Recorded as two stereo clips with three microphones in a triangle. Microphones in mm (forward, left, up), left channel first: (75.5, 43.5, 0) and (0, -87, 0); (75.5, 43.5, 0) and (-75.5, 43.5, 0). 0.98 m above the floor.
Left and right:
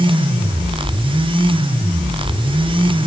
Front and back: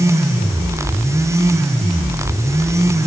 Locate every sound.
Only background noise.